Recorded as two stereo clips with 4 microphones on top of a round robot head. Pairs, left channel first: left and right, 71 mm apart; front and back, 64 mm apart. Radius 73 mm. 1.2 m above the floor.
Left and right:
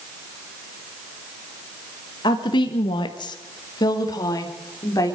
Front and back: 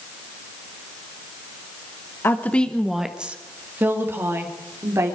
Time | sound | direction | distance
2.2 | a woman speaking | 55° left | 1.1 m